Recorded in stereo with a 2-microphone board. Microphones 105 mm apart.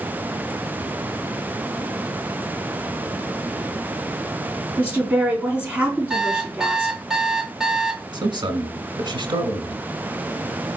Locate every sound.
4.8 s a woman speaking: 15° right (ahead or behind), 4 m
6.1 s an alarm clock: 5° right (ahead or behind), 0.9 m
8.1 s a man speaking: 50° right (ahead or behind), 1.6 m